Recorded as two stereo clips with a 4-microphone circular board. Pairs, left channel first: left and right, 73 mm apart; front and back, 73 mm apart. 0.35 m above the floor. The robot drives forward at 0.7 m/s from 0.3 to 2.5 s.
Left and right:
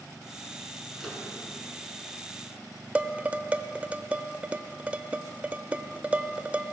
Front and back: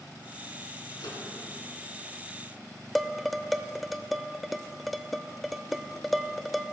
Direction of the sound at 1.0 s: Straight ahead.